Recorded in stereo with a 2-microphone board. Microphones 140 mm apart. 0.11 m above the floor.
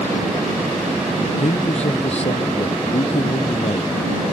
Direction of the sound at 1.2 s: 50° left (ahead or behind).